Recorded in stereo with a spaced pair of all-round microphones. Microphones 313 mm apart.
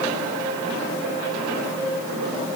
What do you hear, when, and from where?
Only background noise.